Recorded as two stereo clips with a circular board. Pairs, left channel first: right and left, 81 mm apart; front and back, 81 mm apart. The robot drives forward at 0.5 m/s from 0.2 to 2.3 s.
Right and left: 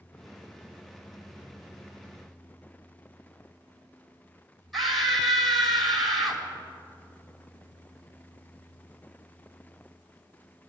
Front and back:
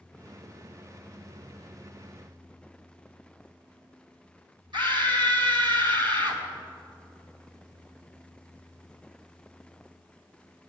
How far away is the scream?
About 3 m.